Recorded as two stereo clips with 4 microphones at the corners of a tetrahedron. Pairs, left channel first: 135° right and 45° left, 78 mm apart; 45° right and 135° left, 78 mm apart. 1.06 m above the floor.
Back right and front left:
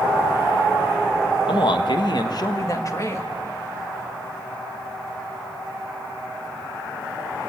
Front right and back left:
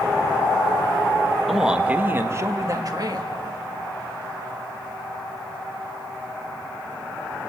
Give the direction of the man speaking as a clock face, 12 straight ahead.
4 o'clock.